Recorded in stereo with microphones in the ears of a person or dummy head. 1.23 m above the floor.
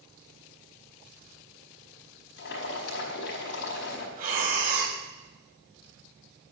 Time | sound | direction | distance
2.4 | boiling | 65° left (ahead or behind) | 5 m
4.2 | breathing | 50° right (ahead or behind) | 3.5 m